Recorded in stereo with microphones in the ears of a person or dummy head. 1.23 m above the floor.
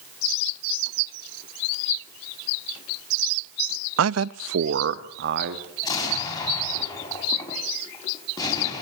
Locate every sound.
4.0 s a man speaking: 75° right (ahead or behind), 0.7 m; by 5.7 s 60° right (ahead or behind), 2.5 m
5.8 s an explosion: 25° left (ahead or behind), 5.5 m